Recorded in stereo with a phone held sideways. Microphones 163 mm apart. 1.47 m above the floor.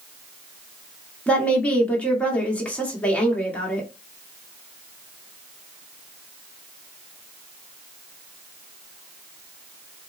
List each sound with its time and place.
1.3 s a woman speaking: 10° left (ahead or behind), 1.2 m